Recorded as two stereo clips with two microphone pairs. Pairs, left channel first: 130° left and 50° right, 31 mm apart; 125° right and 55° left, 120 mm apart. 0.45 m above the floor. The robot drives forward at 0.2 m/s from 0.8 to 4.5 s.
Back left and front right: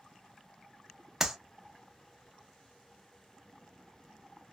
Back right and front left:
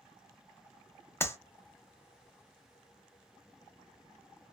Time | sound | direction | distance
1.2 | a clap | 120° right | 0.5 m